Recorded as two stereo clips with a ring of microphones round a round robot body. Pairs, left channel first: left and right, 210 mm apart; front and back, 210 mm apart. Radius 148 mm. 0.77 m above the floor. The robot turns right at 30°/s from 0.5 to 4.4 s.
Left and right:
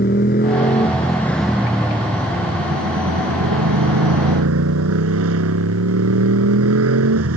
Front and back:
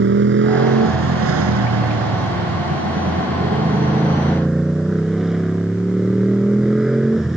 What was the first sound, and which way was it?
A motorcycle, 150° left.